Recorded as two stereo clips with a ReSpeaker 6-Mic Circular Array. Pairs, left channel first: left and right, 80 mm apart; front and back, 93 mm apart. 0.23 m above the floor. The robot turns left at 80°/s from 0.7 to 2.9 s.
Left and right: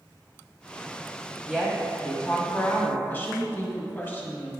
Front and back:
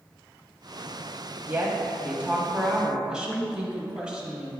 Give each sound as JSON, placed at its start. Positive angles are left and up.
{"t": 1.5, "sound": "a woman speaking", "azimuth_deg": -155, "distance_m": 1.1}
{"t": 3.1, "sound": "a woman speaking", "azimuth_deg": 115, "distance_m": 1.1}